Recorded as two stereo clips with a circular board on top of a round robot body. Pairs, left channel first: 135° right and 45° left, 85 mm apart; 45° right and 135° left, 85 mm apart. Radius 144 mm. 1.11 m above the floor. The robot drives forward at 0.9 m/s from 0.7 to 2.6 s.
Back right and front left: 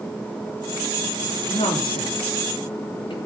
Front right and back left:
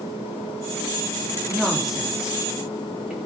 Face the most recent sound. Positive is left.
turn(degrees=-145)